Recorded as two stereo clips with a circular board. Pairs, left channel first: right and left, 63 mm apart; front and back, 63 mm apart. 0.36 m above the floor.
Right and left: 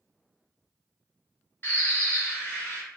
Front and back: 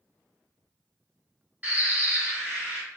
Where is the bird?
125° right, 1.5 m.